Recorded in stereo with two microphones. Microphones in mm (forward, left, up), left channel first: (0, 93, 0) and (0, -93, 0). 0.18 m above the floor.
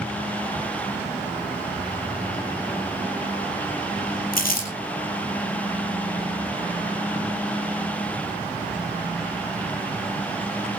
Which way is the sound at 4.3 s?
50° left (ahead or behind).